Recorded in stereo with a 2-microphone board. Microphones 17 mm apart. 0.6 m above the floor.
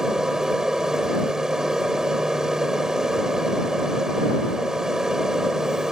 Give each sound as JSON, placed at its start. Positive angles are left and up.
{"t": 0.0, "sound": "an aircraft", "side_deg": -40}